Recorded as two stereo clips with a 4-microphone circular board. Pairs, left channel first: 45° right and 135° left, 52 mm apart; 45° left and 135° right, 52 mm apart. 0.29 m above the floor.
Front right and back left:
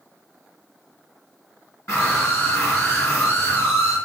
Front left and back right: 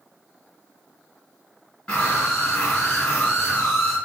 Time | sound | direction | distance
1.9 | a scream | 25° right | 4 m